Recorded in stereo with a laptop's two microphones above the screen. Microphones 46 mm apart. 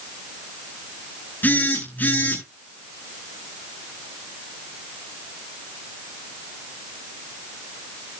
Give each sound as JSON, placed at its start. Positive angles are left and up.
{"t": 1.4, "sound": "a phone buzzing", "side_deg": 40, "distance_m": 8.5}